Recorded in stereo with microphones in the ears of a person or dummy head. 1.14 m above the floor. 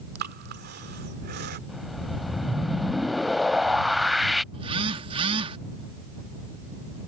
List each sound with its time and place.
0.1 s breathing: 55° right (ahead or behind)
1.7 s a whoosh: centre (ahead or behind)
4.5 s a phone buzzing: 30° right (ahead or behind)